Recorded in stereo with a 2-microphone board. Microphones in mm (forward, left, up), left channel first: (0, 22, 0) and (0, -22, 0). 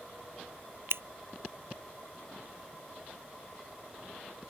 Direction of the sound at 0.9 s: 75° right (ahead or behind).